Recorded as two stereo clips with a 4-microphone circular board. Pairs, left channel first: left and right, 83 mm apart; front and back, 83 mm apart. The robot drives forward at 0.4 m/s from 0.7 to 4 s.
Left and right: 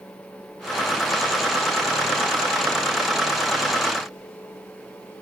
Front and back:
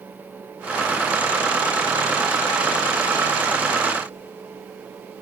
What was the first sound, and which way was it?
Only background noise.